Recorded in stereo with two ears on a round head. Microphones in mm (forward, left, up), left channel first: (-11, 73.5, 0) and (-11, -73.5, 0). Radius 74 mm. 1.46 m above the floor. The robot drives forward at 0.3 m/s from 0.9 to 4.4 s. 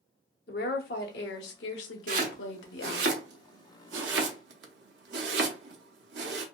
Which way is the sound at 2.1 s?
50° right (ahead or behind).